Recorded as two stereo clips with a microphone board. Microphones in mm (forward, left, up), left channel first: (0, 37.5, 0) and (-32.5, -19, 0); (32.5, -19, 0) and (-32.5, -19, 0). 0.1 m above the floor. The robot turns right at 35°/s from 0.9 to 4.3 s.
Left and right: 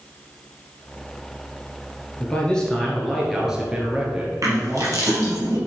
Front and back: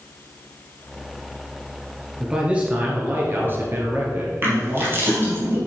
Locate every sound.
2.2 s a man speaking: 115° left, 1.8 m; by 5.4 s 170° right, 1.8 m
4.4 s crushing: 130° right, 3.5 m